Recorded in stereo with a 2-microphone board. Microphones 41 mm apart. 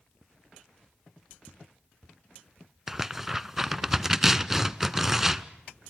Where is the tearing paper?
5° right (ahead or behind), 0.7 m.